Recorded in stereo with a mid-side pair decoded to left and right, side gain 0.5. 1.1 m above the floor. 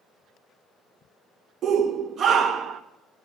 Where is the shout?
55° right, 0.7 m.